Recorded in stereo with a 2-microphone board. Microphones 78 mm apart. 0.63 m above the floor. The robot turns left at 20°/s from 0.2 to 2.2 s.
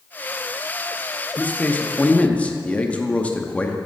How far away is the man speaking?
About 0.6 m.